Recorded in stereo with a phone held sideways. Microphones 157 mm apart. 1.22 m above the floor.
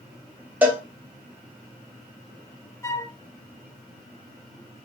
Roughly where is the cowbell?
Centre.